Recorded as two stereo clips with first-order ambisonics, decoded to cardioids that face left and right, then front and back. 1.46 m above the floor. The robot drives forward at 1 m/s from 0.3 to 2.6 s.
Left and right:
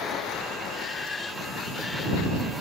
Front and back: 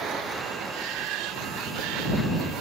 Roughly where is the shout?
Behind left.